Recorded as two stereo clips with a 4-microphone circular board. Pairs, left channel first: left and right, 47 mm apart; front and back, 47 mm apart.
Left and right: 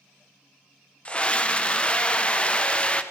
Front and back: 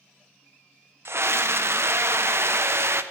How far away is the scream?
About 0.8 m.